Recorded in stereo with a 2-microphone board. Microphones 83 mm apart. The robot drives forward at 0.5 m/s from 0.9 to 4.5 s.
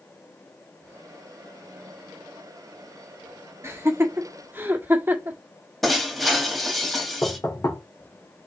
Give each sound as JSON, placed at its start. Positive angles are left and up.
{"t": 3.6, "sound": "laughter", "side_deg": -30, "distance_m": 1.1}
{"t": 5.8, "sound": "breaking glass", "side_deg": 0, "distance_m": 1.7}
{"t": 7.2, "sound": "knocking", "side_deg": 40, "distance_m": 2.5}